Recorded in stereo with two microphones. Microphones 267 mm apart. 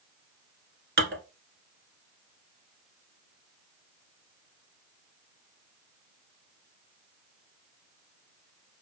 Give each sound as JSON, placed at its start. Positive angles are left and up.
{"t": 1.0, "sound": "dishes clattering", "side_deg": -45, "distance_m": 1.1}